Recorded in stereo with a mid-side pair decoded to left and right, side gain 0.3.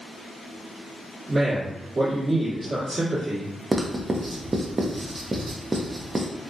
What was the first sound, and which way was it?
A man speaking, 45° right.